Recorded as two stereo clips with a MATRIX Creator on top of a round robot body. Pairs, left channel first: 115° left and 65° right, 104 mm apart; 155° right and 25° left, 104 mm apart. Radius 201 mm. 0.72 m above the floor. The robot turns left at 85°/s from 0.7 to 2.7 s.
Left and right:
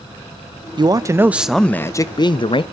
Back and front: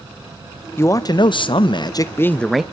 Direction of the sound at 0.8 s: 95° right.